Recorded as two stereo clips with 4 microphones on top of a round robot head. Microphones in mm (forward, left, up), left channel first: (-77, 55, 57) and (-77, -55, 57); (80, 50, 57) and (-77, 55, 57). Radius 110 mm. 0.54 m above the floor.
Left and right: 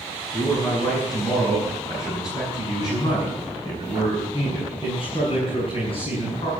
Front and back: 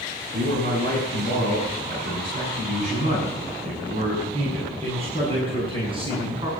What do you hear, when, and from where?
0.3 s a man speaking: 155° left, 7.5 m; by 6.5 s 120° left, 7 m